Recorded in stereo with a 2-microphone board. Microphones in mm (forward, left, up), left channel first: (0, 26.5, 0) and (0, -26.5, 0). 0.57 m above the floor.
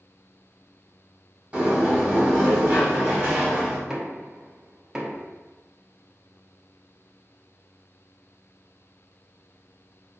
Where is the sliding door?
20° right (ahead or behind), 1.8 m.